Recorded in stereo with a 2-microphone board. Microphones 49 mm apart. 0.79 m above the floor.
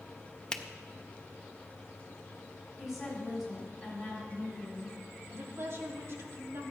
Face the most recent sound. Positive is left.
turn(degrees=-55)  # may be behind; listen again after turning